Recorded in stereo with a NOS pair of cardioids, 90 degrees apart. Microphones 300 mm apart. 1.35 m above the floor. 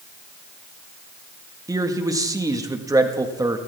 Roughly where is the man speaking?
Ahead.